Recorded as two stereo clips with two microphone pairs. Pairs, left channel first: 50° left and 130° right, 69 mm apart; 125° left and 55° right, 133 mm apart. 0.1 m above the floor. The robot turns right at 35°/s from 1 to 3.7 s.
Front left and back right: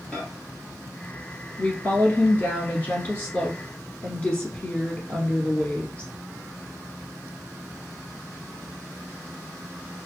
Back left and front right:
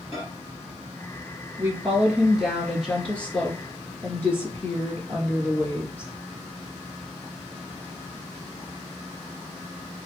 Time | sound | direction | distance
0.1 | a microwave | 115° left | 1.5 m
1.6 | a woman speaking | 5° left | 1.2 m